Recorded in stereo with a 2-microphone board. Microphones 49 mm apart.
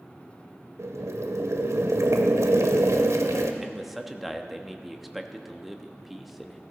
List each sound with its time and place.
0.8 s boiling: 85° right, 1.1 m
3.6 s a man speaking: centre (ahead or behind), 0.9 m